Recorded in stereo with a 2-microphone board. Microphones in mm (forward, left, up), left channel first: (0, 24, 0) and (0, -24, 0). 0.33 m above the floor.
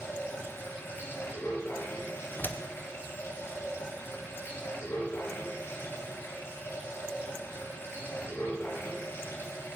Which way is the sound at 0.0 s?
55° left (ahead or behind).